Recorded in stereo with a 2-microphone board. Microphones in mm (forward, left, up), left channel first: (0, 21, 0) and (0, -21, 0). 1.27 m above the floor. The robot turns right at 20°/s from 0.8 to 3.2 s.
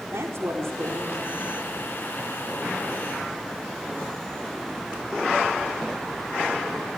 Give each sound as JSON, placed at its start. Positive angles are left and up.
{"t": 0.1, "sound": "a woman speaking", "side_deg": -75, "distance_m": 4.5}